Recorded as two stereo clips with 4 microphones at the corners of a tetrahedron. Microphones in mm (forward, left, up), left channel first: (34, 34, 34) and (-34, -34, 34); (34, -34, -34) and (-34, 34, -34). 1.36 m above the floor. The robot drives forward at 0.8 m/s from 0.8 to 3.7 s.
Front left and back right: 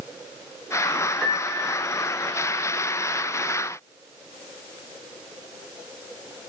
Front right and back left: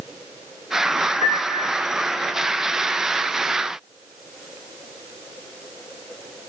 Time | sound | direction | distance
1.2 | a piano | 50° right | 1.5 m